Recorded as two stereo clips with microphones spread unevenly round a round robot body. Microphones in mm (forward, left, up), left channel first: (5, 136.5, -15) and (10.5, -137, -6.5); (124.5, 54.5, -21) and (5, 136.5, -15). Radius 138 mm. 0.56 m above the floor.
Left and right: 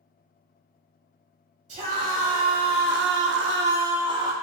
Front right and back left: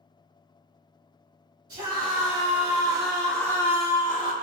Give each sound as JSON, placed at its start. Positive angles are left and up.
{"t": 1.7, "sound": "a scream", "azimuth_deg": -155, "distance_m": 2.5}